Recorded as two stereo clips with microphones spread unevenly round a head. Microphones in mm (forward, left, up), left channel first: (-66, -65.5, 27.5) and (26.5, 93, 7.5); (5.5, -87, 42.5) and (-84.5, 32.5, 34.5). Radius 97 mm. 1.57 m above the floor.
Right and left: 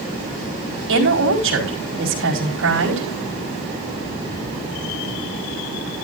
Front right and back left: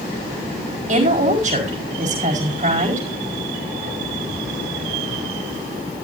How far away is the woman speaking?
About 5 m.